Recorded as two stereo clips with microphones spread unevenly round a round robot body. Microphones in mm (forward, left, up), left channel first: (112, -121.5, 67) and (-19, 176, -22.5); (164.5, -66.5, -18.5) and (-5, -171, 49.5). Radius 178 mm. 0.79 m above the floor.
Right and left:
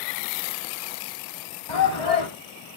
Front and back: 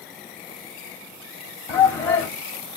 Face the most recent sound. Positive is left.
turn(degrees=-45)